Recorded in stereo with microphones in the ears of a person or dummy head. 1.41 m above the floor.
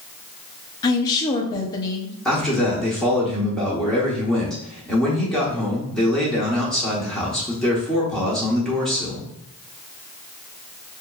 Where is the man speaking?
5° left (ahead or behind), 1.0 m.